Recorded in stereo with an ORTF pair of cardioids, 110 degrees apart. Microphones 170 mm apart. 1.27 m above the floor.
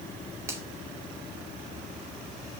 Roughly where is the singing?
No singing in this recording.